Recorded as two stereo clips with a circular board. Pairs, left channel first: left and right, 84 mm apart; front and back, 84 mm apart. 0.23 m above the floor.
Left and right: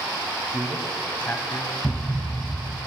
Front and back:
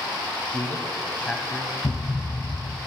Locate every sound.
0.5 s a man speaking: 20° right, 1.2 m; by 1.7 s 75° left, 1.5 m
1.8 s a thud: 10° left, 0.8 m